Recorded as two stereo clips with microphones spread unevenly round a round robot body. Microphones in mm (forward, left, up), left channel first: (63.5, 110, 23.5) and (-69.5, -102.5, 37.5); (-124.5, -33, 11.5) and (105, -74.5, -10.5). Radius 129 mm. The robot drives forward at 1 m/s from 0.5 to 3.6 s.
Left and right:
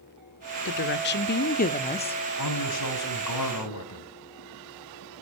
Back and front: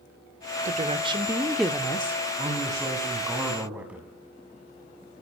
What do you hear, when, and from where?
0.7 s a woman speaking: 35° left, 1.9 m; by 2.1 s 110° left, 1.5 m
2.4 s a man speaking: 60° left, 5 m; by 4.1 s 75° left, 5 m